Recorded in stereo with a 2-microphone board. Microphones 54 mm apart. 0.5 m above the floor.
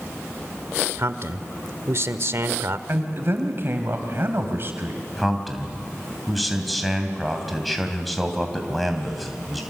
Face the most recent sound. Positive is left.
turn(degrees=0)  # may be behind; listen again after turning